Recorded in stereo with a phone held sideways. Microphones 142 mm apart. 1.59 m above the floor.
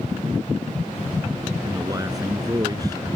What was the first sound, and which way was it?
A man speaking, 25° right (ahead or behind).